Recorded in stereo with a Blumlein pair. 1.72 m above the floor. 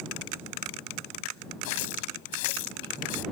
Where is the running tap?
50° left.